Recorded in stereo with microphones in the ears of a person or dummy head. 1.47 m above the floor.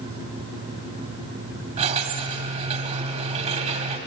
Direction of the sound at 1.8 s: 35° right (ahead or behind).